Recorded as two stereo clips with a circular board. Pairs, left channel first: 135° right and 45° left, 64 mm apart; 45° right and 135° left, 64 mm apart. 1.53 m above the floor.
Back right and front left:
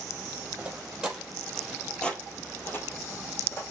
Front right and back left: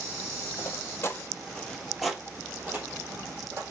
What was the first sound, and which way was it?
Footsteps, 20° right.